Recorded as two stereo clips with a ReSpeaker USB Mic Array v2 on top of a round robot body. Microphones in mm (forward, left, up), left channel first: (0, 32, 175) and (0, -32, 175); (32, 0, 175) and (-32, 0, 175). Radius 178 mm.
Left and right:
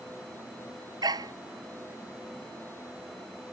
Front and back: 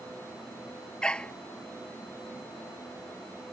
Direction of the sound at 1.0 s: 75° right.